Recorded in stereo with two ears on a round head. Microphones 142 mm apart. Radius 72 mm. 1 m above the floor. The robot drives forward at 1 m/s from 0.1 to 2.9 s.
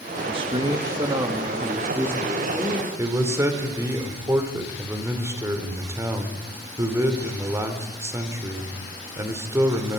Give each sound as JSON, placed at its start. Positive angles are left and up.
{"t": 0.3, "sound": "a man speaking", "side_deg": -35, "distance_m": 1.5}
{"t": 3.0, "sound": "a man speaking", "side_deg": -20, "distance_m": 3.0}